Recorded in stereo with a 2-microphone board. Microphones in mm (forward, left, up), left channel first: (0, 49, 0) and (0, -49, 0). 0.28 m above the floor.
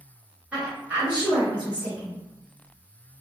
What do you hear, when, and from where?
0.5 s a woman speaking: 10° right (ahead or behind), 1.0 m